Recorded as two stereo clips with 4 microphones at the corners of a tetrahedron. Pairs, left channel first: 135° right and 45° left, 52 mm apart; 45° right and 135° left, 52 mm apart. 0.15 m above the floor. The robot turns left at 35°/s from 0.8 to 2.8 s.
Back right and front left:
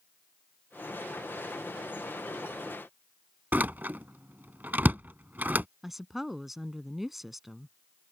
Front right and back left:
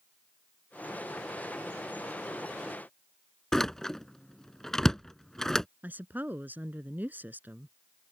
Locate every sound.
3.5 s a door slam: 30° left
5.8 s a woman speaking: 125° left